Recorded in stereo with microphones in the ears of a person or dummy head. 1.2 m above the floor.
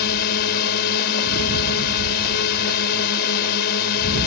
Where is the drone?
55° left (ahead or behind).